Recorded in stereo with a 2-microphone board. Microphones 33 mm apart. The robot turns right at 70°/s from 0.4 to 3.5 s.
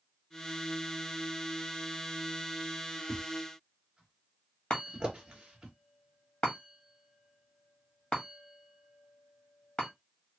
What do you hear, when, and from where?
3.1 s a thud: centre (ahead or behind), 1.8 m; by 5.7 s 25° right (ahead or behind), 1.8 m
4.7 s a chime: 40° left (ahead or behind), 1.7 m